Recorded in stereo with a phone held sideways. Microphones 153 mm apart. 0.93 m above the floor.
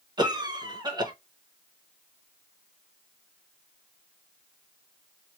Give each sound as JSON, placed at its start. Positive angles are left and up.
{"t": 0.2, "sound": "a cough", "side_deg": -30, "distance_m": 1.0}